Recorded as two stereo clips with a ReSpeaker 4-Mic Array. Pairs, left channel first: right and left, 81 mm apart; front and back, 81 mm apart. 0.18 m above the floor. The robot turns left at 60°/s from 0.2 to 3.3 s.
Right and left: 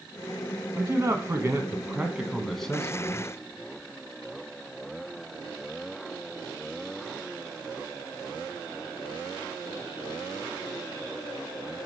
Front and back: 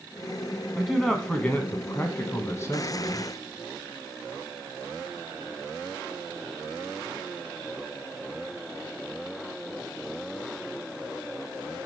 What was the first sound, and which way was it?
A man speaking, 100° left.